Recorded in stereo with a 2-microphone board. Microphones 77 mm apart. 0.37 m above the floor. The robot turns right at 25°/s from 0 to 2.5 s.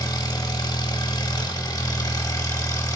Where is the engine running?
70° left, 0.8 m; by 3.0 s 130° left, 0.8 m.